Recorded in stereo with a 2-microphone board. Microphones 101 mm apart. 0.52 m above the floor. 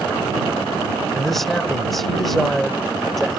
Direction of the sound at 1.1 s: Centre (ahead or behind).